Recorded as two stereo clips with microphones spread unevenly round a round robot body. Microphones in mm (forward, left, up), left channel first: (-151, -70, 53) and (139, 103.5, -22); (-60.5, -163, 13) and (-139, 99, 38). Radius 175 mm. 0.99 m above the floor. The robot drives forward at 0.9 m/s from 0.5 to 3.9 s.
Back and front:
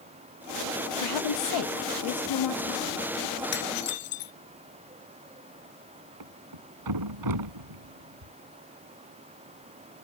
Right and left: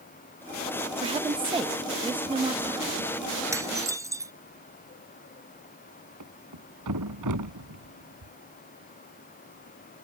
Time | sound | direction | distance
1.0 | a woman speaking | straight behind | ?
3.5 | dishes clattering | 175° right | ?
6.2 | a thud | 65° left | ?